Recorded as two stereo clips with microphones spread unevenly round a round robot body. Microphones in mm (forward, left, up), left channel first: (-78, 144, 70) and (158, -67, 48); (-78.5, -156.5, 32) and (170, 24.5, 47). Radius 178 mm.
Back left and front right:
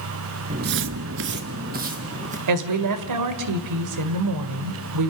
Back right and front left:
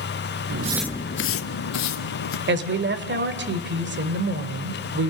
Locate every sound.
0.5 s footsteps: 20° left, 0.7 m; by 2.4 s 115° right, 2.5 m
2.5 s a woman speaking: 20° right, 2.5 m